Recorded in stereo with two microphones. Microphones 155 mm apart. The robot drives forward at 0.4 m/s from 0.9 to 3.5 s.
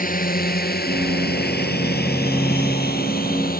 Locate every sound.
0.0 s a drone: 60° left (ahead or behind); by 3.6 s 65° left (ahead or behind)